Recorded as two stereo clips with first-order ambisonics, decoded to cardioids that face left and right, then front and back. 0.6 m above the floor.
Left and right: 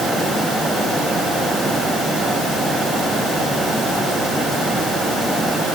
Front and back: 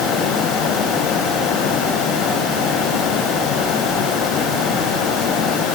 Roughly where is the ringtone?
I don't hear a ringtone.